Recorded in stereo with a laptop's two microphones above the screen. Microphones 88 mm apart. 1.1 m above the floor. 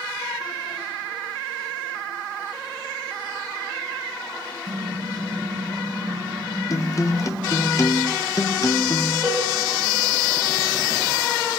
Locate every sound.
4.7 s typing on a keyboard: 70° right (ahead or behind), 3 m
6.7 s a guitar: 40° left (ahead or behind), 0.7 m
9.2 s a cowbell: 25° right (ahead or behind), 3.5 m